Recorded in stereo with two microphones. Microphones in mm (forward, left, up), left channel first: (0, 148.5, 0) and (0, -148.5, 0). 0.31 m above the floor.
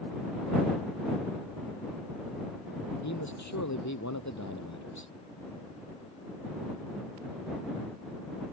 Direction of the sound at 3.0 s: 70° left (ahead or behind).